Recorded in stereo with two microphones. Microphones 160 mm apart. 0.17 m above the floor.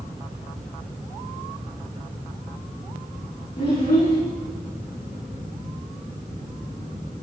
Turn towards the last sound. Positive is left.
turn(degrees=80)